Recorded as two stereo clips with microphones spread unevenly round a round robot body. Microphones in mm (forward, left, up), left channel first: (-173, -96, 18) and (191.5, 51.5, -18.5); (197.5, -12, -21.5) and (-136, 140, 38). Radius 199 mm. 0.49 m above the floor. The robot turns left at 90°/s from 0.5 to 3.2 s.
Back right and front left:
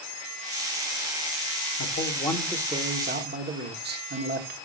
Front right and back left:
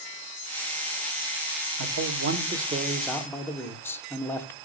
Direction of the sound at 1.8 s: 165° left.